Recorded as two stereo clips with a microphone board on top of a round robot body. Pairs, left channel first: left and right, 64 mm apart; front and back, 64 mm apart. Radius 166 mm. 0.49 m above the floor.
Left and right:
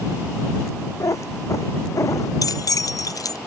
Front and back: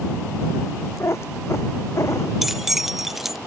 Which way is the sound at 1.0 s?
50° left.